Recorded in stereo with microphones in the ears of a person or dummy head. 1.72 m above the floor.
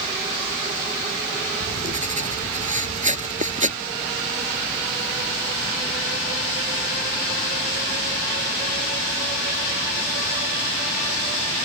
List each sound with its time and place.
1.6 s writing: 40° right (ahead or behind)